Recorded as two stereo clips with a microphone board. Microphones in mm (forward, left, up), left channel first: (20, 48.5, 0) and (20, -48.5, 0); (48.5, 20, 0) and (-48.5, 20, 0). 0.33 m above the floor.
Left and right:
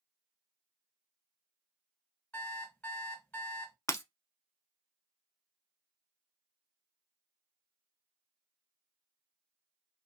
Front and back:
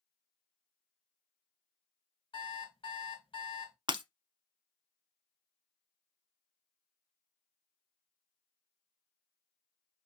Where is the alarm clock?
20° left, 1.8 m.